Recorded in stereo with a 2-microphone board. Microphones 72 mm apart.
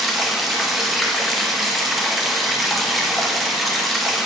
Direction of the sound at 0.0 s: Centre (ahead or behind).